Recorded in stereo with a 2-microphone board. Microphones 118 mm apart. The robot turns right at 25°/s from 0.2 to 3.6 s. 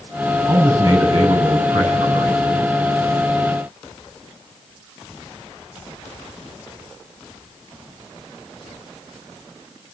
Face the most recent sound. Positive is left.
turn(degrees=-75)